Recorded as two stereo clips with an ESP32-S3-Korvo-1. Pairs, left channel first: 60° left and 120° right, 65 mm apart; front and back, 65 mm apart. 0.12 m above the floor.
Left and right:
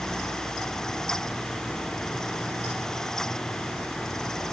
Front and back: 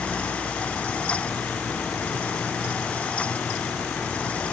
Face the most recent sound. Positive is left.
No sound to turn to.